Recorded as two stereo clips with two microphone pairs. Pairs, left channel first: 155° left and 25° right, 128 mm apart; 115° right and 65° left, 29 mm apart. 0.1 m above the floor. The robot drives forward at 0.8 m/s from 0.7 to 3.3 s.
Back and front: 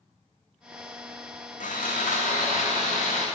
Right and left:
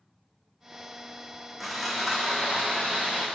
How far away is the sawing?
About 1.3 m.